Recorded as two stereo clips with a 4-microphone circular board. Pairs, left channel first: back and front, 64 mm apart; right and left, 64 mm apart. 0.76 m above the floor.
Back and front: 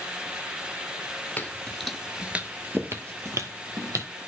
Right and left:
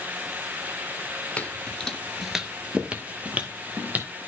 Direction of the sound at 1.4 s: 140° right.